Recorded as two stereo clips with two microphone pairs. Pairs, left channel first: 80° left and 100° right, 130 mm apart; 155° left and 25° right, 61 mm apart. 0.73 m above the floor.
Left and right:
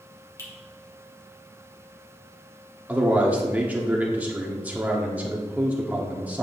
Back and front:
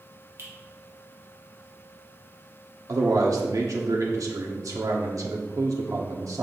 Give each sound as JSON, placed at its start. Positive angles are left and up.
{"t": 0.4, "sound": "a finger snap", "azimuth_deg": 15, "distance_m": 2.5}
{"t": 2.9, "sound": "a man speaking", "azimuth_deg": -20, "distance_m": 1.3}